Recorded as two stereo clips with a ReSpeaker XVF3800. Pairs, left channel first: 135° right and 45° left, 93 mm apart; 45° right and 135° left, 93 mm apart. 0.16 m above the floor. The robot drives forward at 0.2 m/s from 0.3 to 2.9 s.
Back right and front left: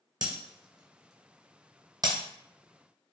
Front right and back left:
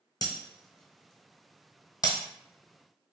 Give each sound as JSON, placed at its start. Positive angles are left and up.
{"t": 0.2, "sound": "breaking glass", "azimuth_deg": 0, "distance_m": 1.0}